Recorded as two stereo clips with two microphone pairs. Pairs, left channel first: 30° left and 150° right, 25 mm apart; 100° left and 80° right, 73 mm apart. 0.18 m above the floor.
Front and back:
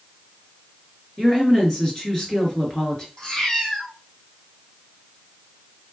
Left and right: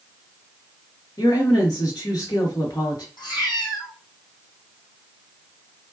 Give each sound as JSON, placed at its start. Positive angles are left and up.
{"t": 1.2, "sound": "a woman speaking", "azimuth_deg": 100, "distance_m": 2.5}
{"t": 3.2, "sound": "a cat meowing", "azimuth_deg": 90, "distance_m": 2.5}